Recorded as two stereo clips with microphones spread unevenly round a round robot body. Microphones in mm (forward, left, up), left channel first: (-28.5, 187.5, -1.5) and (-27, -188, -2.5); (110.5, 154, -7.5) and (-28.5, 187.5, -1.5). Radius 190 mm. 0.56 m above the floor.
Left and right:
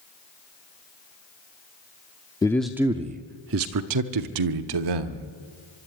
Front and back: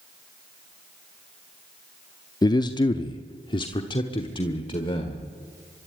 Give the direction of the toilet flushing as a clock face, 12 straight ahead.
No toilet flushing in this recording.